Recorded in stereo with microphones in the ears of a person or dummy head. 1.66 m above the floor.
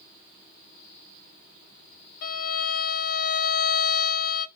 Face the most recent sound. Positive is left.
turn(degrees=50)  # may be behind; listen again after turning